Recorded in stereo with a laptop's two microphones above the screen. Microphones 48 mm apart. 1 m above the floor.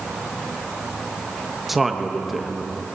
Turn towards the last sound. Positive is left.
turn(degrees=-5)  # may be behind; listen again after turning